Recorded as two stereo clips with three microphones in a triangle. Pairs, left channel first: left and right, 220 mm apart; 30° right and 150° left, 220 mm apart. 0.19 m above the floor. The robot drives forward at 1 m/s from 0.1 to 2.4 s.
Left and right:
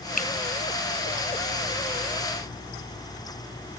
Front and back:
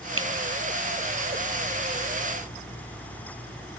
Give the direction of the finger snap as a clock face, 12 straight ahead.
7 o'clock.